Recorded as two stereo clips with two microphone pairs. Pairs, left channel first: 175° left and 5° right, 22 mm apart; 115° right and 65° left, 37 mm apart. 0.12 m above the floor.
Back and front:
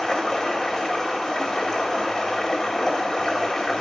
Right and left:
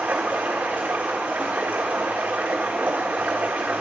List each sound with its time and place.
0.0 s running water: 105° left, 1.5 m